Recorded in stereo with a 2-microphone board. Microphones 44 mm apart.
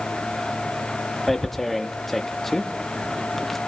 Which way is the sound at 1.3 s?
5° left (ahead or behind).